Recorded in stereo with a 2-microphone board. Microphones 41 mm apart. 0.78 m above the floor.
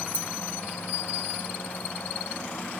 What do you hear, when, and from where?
0.1 s keys jangling: 45° left (ahead or behind), 0.8 m